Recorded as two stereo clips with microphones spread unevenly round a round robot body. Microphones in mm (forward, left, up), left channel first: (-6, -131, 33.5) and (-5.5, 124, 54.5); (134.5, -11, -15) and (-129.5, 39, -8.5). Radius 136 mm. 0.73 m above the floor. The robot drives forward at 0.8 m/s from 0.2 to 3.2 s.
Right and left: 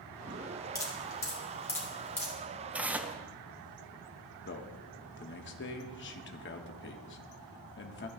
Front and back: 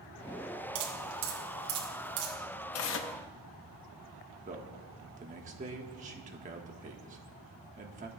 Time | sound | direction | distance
0.8 | dripping | 170° right | 3 m
2.7 | tearing paper | straight ahead | 0.9 m
4.5 | a man speaking | 125° right | 1.3 m